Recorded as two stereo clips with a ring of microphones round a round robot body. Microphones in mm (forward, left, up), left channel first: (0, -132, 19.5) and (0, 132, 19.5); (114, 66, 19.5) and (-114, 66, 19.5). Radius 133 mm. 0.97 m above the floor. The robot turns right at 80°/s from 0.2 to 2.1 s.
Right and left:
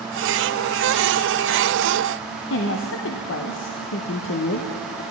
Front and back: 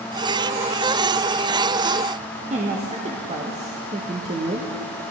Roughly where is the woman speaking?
Behind right.